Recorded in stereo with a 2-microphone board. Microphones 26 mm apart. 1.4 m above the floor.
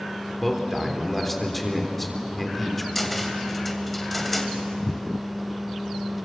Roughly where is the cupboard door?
Centre.